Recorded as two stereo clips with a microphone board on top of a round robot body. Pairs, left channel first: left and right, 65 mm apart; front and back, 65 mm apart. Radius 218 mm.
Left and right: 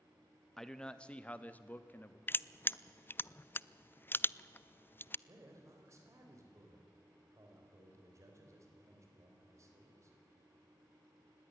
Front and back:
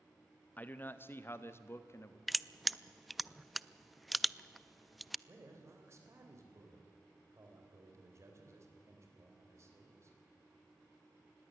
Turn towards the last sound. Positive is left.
turn(degrees=-135)